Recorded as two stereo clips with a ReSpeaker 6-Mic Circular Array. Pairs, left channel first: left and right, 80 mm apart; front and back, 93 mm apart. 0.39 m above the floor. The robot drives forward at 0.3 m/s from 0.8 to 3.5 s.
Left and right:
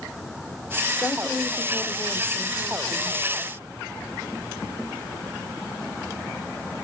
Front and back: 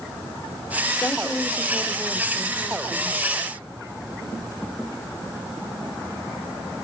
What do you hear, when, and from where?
1.0 s a woman speaking: 25° left, 0.8 m; by 3.2 s 160° left, 0.8 m